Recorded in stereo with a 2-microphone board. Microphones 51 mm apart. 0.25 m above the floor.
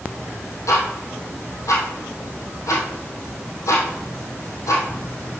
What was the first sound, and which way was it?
Ticking, 85° left.